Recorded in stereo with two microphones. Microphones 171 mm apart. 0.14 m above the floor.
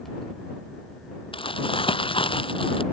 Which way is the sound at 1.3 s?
30° left (ahead or behind).